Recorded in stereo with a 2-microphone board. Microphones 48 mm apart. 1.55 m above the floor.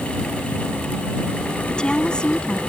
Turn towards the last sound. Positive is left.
turn(degrees=20)  # may be behind; listen again after turning